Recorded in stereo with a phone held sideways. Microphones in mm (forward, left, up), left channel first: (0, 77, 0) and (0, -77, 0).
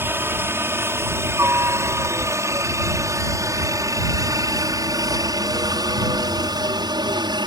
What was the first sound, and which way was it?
A helicopter, 15° right (ahead or behind).